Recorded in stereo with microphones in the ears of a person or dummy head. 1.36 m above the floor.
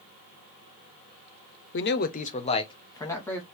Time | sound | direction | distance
1.7 | a man speaking | 55° left (ahead or behind) | 0.5 m